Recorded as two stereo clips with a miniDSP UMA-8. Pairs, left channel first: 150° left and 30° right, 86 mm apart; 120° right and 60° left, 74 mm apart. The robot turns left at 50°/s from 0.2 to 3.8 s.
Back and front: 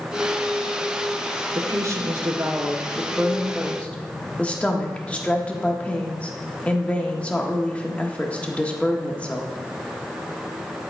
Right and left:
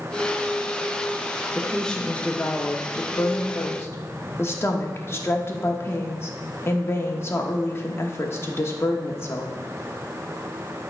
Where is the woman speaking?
30° right, 1.1 m; by 9.6 s 140° right, 1.1 m.